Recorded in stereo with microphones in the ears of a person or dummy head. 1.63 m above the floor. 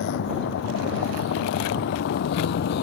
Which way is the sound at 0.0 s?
65° left (ahead or behind).